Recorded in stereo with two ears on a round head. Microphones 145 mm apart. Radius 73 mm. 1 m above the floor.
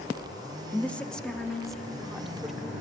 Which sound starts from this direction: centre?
A woman speaking, at 0.7 s.